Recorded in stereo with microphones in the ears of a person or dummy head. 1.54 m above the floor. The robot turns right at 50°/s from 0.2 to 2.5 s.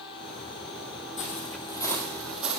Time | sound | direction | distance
1.2 | footsteps | 40° left (ahead or behind) | 3 m